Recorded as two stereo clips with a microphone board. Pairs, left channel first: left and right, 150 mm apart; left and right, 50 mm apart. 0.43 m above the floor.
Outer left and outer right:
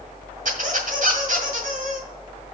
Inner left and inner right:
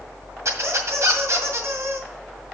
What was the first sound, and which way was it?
A squeak, 65° right (ahead or behind).